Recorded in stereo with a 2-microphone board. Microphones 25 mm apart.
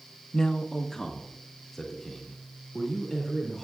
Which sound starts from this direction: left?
A man speaking, at 0.3 s.